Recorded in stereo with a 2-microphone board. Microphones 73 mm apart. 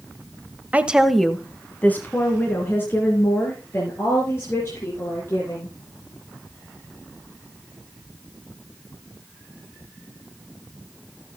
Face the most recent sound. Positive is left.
turn(degrees=35)  # may be behind; listen again after turning